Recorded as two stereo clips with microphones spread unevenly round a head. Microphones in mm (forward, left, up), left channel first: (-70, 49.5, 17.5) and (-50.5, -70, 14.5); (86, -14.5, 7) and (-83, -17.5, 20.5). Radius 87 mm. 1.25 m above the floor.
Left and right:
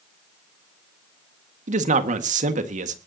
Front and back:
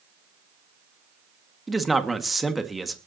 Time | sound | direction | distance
1.7 | a man speaking | 90° right | 1.8 m